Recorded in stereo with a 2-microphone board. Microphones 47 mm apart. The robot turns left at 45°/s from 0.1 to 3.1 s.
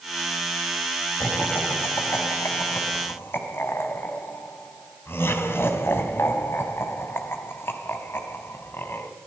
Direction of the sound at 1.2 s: 30° left (ahead or behind).